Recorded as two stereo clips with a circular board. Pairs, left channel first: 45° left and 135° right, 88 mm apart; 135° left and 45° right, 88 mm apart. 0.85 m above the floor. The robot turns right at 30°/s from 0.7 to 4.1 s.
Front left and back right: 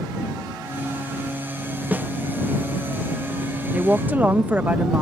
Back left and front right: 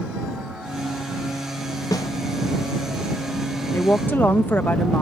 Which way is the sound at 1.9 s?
160° left.